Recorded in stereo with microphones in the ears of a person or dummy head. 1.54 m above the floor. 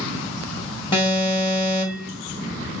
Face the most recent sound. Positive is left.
turn(degrees=20)  # may be behind; listen again after turning